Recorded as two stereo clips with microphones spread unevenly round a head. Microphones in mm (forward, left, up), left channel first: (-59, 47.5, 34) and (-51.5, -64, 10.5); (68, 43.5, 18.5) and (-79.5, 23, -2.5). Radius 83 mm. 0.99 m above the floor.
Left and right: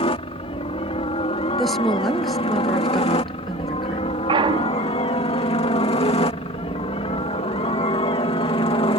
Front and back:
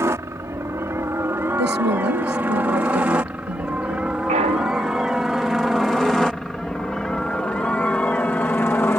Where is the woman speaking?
Straight behind.